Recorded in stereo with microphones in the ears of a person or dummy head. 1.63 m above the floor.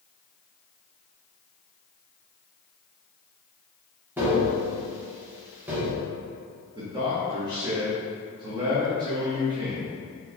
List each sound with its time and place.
4.2 s tapping: 10° right (ahead or behind), 0.8 m
6.8 s a man speaking: 25° right (ahead or behind), 0.8 m